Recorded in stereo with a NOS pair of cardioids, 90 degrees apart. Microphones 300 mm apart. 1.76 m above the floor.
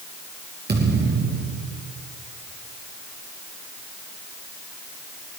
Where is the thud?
35° right, 8 m.